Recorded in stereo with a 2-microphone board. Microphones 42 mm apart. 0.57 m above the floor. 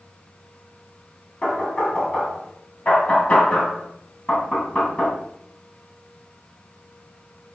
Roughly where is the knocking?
Left.